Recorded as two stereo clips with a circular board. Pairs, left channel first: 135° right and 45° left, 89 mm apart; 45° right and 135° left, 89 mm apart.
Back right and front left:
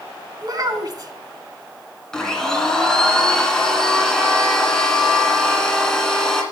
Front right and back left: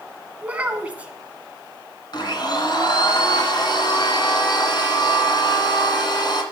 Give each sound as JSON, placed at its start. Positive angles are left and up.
{"t": 0.4, "sound": "a child speaking", "azimuth_deg": 65, "distance_m": 1.5}
{"t": 2.1, "sound": "a blender", "azimuth_deg": -55, "distance_m": 2.0}